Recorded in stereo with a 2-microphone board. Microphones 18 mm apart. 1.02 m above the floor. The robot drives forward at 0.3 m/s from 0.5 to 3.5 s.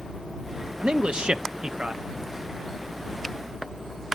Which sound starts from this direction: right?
A man speaking, at 0.8 s.